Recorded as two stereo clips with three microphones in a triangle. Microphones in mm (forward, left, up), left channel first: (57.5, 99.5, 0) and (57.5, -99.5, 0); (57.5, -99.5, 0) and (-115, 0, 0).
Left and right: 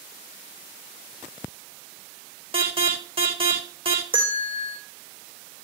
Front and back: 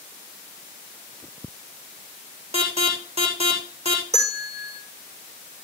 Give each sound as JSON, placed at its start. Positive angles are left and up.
{"t": 2.5, "sound": "an alarm", "azimuth_deg": -150, "distance_m": 5.5}
{"t": 4.1, "sound": "a bell", "azimuth_deg": -155, "distance_m": 4.5}